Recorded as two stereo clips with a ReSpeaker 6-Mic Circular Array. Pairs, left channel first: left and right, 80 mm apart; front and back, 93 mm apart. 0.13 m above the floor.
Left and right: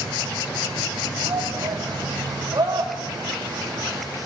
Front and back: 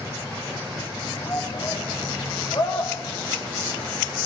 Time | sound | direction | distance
1.2 | a shout | 50° right | 4.5 m